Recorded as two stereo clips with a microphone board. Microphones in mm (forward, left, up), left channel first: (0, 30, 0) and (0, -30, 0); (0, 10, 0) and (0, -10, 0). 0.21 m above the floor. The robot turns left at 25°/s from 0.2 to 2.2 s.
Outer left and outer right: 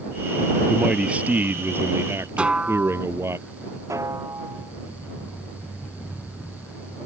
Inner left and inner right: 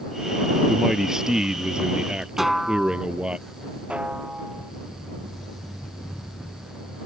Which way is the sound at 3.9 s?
60° right (ahead or behind).